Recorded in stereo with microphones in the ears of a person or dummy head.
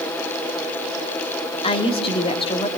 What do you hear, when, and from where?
1.6 s a woman speaking: 25° left (ahead or behind), 3 m